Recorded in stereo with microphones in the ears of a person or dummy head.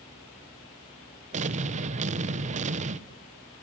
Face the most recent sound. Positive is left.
turn(degrees=-45)  # may be behind; listen again after turning